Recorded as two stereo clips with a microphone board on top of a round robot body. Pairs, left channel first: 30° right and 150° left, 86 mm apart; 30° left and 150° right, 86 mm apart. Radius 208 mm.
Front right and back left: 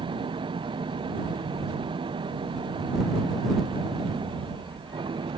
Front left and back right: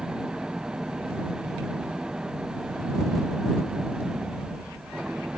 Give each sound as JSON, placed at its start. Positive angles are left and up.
{"t": 0.0, "sound": "an engine running", "azimuth_deg": 130}